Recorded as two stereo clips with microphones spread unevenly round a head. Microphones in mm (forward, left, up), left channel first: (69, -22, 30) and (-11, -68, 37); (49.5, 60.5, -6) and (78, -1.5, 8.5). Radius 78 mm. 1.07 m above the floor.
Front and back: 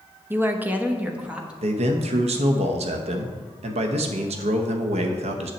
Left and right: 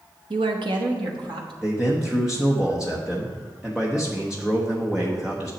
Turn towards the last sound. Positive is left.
turn(degrees=-155)